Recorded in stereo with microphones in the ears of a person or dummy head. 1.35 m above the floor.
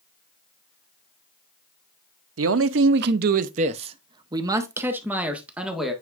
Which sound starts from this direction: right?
A man speaking, at 2.4 s.